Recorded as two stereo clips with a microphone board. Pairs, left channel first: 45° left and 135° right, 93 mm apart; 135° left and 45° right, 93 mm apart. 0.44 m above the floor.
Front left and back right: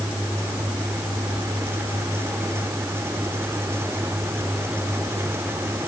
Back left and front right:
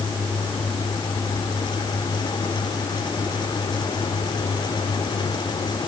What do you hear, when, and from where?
Only background noise.